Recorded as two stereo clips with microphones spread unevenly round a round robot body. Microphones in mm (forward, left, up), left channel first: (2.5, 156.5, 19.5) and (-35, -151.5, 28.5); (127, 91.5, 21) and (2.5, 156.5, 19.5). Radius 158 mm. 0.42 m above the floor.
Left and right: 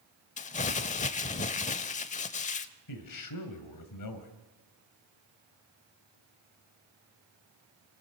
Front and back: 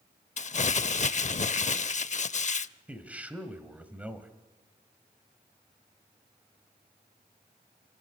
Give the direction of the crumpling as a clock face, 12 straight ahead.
11 o'clock.